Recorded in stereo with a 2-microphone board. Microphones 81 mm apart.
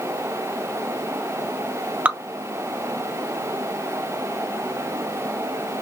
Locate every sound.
2.0 s dripping: 15° right (ahead or behind), 0.6 m